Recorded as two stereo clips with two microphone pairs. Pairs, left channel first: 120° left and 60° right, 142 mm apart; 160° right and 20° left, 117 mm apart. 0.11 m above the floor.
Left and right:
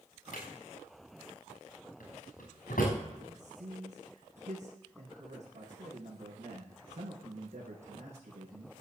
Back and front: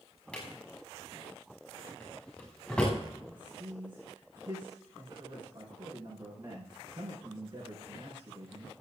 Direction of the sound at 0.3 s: 115° left.